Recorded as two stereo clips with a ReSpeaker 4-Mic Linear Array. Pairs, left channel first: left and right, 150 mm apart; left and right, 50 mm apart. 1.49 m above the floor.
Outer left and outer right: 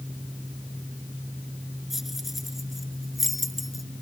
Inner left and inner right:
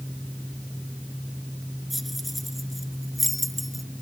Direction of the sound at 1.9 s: Centre (ahead or behind).